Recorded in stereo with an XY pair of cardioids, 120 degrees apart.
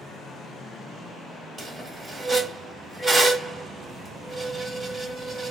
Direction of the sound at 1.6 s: 5° right.